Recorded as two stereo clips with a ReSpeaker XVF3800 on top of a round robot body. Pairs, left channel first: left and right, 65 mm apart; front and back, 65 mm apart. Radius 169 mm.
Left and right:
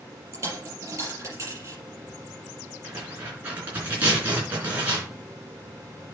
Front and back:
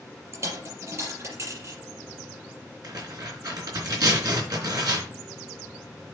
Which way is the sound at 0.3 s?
135° right.